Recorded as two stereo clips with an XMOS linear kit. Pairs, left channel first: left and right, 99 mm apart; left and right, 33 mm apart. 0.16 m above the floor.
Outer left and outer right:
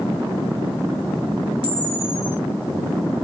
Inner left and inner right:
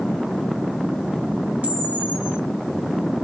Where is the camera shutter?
60° right (ahead or behind), 1.9 m.